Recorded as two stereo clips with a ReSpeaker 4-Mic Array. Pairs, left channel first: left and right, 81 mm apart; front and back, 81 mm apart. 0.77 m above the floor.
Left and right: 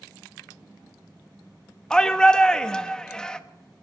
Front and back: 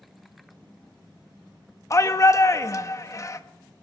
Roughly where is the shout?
Ahead.